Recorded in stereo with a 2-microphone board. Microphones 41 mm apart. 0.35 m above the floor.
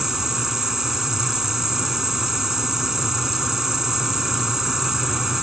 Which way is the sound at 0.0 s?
10° right (ahead or behind).